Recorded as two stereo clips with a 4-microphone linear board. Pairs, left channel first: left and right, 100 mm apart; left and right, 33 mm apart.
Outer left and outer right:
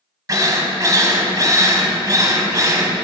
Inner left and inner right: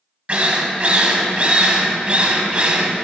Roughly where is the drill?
Right.